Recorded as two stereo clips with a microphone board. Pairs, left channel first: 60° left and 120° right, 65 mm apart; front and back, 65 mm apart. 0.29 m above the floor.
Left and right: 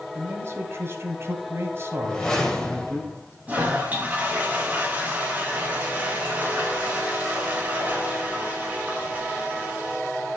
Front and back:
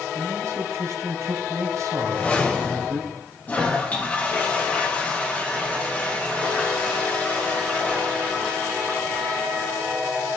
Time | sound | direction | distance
0.1 | a man speaking | 160° right | 1.5 m
2.0 | a whoosh | straight ahead | 1.5 m
3.5 | a toilet flushing | 60° right | 2.5 m